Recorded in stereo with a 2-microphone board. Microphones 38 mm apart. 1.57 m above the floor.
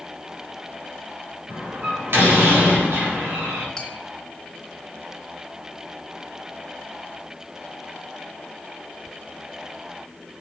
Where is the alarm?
I don't hear an alarm.